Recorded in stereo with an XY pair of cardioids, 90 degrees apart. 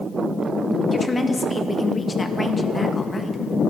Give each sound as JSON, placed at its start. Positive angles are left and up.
{"t": 0.9, "sound": "a woman speaking", "azimuth_deg": 25, "distance_m": 2.0}